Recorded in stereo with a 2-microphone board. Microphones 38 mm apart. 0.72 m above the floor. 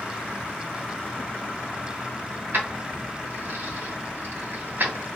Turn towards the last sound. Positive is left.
turn(degrees=-60)  # may be behind; listen again after turning